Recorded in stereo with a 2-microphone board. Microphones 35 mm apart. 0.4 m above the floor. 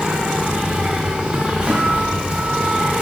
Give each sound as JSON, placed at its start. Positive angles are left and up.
{"t": 0.0, "sound": "an insect", "side_deg": -25, "distance_m": 1.7}
{"t": 1.7, "sound": "a guitar", "side_deg": -35, "distance_m": 2.5}